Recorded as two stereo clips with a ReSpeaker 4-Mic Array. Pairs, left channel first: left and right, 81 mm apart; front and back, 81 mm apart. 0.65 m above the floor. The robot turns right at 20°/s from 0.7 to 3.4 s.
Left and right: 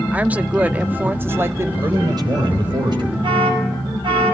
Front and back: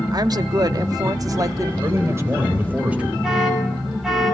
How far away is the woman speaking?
About 0.8 m.